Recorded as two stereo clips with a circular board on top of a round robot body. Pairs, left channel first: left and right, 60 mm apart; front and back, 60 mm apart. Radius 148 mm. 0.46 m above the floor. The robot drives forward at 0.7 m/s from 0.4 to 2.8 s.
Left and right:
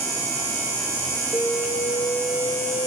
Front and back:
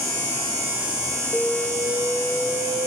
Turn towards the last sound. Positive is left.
turn(degrees=120)